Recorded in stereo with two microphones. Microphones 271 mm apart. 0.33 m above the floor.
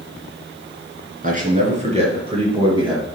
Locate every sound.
1.2 s a man speaking: 30° right (ahead or behind), 4 m; by 3.0 s 20° right (ahead or behind), 5 m